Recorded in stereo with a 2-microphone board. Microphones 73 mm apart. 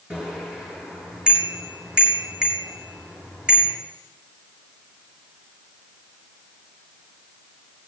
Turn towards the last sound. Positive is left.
turn(degrees=-10)  # may be behind; listen again after turning